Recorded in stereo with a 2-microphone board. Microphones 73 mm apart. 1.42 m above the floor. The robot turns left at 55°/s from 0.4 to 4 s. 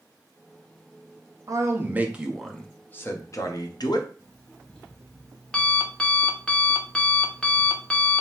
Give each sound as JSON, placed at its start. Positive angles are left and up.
{"t": 1.5, "sound": "a man speaking", "azimuth_deg": -130, "distance_m": 0.8}
{"t": 4.2, "sound": "an alarm clock", "side_deg": 15, "distance_m": 0.8}